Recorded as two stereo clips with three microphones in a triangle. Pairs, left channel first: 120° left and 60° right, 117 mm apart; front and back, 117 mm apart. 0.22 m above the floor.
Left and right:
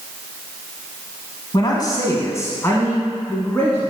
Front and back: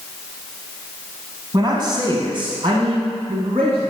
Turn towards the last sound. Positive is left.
turn(degrees=-160)